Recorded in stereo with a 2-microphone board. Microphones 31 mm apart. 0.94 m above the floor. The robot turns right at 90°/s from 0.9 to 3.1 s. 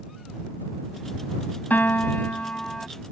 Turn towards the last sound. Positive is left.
turn(degrees=-165)